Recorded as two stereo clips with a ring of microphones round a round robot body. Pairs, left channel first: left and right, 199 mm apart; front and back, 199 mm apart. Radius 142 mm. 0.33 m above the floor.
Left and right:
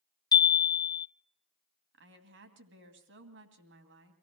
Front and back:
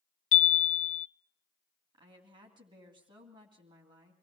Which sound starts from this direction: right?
A woman speaking, at 1.9 s.